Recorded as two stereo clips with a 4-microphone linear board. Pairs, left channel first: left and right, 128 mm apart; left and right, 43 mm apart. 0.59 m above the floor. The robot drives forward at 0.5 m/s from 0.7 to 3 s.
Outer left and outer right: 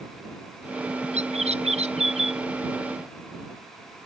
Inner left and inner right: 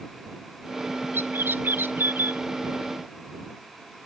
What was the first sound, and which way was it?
A bird, 55° right (ahead or behind).